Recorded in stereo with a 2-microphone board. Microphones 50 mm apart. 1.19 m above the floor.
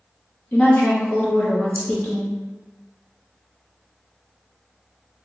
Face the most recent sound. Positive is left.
turn(degrees=40)  # may be behind; listen again after turning